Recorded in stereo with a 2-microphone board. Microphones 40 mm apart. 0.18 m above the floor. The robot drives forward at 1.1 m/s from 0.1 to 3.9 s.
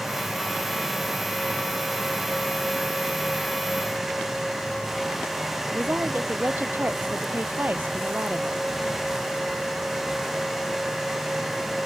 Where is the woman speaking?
50° right (ahead or behind).